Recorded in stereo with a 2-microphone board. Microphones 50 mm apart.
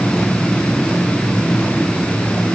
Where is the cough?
No cough in this recording.